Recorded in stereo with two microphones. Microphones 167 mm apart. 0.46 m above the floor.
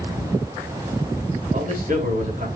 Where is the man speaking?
50° right (ahead or behind), 5 m.